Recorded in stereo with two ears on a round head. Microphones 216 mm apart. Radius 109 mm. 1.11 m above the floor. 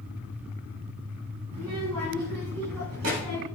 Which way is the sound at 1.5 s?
80° right.